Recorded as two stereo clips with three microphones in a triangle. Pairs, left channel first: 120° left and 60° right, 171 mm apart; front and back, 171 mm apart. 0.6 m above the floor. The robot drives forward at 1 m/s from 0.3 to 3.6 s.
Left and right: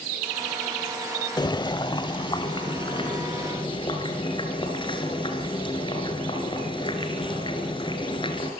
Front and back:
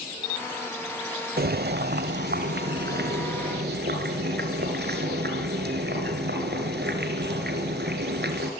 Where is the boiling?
175° right, 0.5 m; by 8.5 s straight behind, 2.5 m.